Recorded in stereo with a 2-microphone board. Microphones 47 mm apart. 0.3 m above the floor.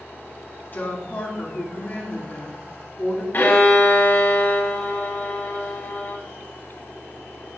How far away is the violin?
About 1.9 m.